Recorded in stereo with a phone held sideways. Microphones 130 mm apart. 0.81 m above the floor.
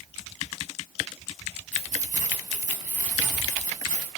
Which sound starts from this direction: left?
Keys jangling, at 1.7 s.